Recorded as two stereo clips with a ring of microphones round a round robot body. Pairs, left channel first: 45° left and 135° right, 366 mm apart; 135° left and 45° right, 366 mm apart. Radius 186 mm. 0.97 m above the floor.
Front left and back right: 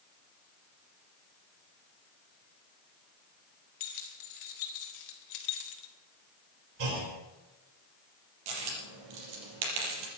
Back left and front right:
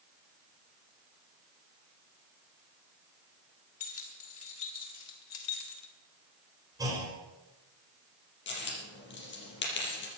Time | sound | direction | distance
3.8 | keys jangling | 80° left | 4 m
6.8 | a clunk | 125° right | 4.5 m
8.5 | a dropped coin | 165° right | 5.5 m